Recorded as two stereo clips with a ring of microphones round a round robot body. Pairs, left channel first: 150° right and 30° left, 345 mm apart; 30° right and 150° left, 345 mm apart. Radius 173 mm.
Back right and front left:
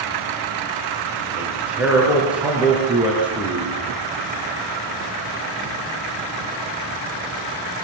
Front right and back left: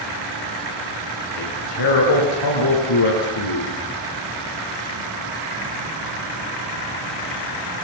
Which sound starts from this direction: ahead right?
A man speaking, at 1.4 s.